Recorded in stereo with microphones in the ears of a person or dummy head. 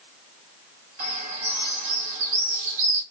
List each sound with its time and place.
1.0 s a bird: 55° right (ahead or behind), 2.5 m